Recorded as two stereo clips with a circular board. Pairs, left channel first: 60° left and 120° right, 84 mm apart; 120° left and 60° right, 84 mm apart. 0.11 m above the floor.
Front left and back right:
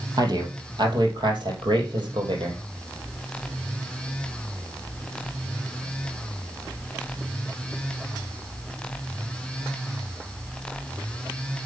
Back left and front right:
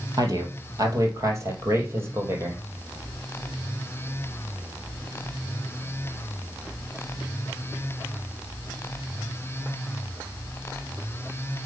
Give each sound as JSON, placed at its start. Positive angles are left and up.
{"t": 0.2, "sound": "a man speaking", "azimuth_deg": -95, "distance_m": 3.0}